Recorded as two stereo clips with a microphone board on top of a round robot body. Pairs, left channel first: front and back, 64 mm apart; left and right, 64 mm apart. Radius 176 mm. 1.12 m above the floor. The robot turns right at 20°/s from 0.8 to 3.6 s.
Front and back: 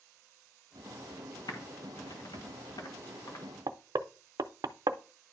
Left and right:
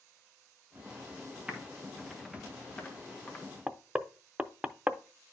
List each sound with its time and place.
1.5 s typing on a keyboard: 15° right, 1.3 m; by 3.5 s 25° left, 1.3 m
3.7 s knocking: 160° right, 0.5 m